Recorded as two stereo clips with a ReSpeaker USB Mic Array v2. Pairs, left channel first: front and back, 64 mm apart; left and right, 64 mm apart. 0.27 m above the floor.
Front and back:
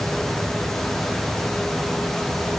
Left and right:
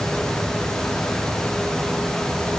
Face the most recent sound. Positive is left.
No sound to turn to.